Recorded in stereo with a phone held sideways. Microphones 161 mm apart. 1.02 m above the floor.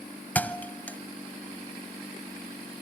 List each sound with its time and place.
0.3 s a thud: 10° left (ahead or behind), 0.9 m